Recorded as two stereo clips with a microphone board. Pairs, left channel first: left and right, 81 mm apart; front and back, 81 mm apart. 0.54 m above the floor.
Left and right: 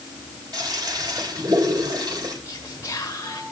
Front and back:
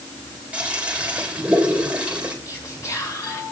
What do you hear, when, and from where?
0.5 s a toilet flushing: 110° right, 3 m
2.5 s whispering: 40° left, 2 m